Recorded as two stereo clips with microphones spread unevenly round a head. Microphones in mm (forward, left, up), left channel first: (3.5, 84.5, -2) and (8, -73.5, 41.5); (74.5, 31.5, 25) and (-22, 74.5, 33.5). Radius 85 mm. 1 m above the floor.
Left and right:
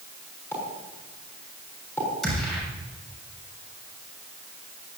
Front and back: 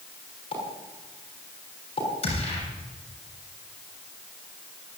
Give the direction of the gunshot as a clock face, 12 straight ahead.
12 o'clock.